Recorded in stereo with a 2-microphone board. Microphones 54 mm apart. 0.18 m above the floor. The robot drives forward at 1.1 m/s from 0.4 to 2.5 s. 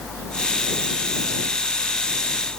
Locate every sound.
Only background noise.